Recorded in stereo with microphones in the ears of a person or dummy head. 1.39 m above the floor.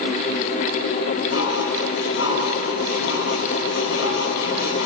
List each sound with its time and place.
1.3 s dishes clattering: 70° left (ahead or behind), 8.5 m